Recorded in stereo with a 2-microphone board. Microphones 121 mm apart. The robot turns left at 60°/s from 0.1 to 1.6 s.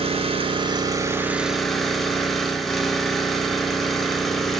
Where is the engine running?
90° right, 0.9 m; by 4.6 s straight behind, 0.9 m.